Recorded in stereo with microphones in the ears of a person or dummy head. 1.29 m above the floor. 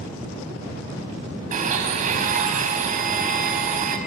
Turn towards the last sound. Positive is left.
turn(degrees=-40)  # may be behind; listen again after turning